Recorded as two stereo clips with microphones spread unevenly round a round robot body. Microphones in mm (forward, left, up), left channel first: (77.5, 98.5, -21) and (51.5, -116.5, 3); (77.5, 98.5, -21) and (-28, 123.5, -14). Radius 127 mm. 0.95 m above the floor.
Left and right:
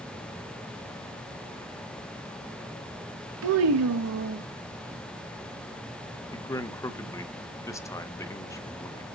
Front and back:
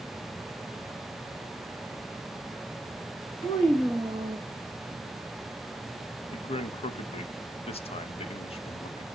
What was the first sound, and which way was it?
A child speaking, 80° right.